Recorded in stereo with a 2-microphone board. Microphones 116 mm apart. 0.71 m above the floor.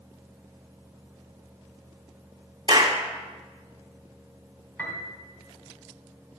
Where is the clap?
35° right (ahead or behind), 1.5 m.